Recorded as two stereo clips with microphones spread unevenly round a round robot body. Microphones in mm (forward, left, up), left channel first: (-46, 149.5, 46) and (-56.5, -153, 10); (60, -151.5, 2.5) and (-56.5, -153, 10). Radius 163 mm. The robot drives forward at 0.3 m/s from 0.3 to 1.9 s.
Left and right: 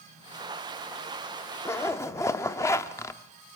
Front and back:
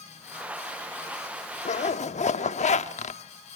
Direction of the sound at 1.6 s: 5° left.